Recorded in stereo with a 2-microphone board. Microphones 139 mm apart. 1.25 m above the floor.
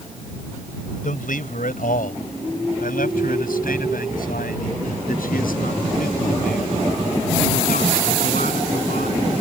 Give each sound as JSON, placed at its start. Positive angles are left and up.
{"t": 1.0, "sound": "a man speaking", "side_deg": 70}